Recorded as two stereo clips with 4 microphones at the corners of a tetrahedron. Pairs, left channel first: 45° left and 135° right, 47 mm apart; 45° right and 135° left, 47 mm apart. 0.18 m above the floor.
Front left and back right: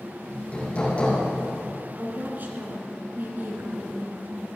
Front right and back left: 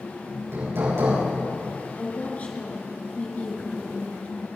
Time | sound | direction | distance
0.3 | hammering | 110° left | 7.5 m
2.0 | a woman speaking | 100° right | 3 m